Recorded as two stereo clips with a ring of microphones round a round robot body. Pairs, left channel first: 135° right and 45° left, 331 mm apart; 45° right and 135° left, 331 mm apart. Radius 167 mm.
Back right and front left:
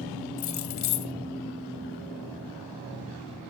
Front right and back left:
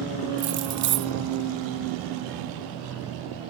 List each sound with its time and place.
0.4 s keys jangling: 175° right, 0.9 m